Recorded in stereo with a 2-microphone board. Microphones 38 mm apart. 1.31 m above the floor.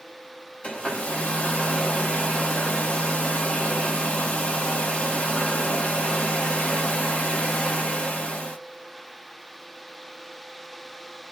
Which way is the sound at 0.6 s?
35° left (ahead or behind).